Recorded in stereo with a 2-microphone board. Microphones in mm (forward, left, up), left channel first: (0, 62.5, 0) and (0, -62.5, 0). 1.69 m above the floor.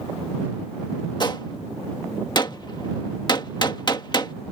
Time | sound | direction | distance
1.2 | a gunshot | 35° left (ahead or behind) | ?